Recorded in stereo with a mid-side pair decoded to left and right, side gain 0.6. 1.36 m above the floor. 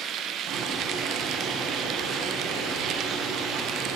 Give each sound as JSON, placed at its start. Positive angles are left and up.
{"t": 0.5, "sound": "boiling", "azimuth_deg": -55, "distance_m": 9.0}